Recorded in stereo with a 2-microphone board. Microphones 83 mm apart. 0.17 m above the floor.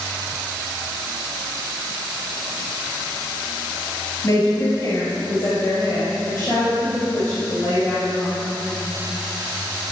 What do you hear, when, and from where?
4.2 s a woman speaking: 40° left (ahead or behind), 3.5 m; by 8.3 s 15° left (ahead or behind), 7 m